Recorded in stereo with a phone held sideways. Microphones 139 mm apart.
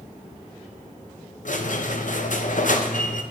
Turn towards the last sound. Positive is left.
turn(degrees=70)  # may be behind; listen again after turning